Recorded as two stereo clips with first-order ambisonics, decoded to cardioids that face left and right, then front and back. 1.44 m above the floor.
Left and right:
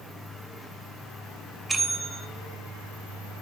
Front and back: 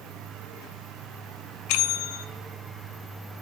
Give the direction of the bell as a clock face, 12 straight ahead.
12 o'clock.